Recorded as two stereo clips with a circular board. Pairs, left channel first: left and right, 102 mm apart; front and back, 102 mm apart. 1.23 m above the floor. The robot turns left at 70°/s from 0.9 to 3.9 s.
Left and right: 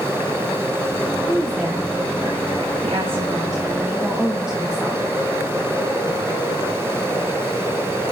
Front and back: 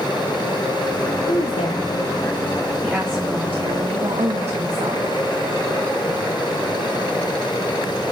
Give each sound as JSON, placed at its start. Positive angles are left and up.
{"t": 1.3, "sound": "a woman speaking", "azimuth_deg": 10, "distance_m": 1.6}